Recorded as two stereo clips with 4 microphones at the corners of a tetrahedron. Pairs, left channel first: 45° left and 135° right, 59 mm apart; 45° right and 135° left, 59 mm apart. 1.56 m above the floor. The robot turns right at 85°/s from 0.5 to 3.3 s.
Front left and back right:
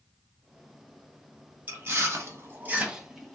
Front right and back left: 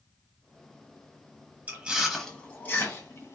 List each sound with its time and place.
1.7 s chewing: straight behind, 1.1 m; by 3.4 s 40° right, 1.1 m